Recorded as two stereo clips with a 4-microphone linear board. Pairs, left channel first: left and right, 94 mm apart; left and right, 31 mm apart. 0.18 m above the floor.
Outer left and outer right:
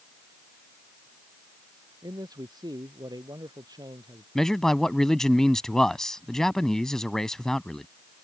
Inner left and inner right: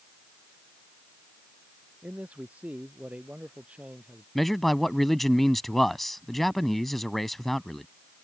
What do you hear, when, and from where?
2.0 s a man speaking: 45° right (ahead or behind)
4.3 s a man speaking: 5° left (ahead or behind)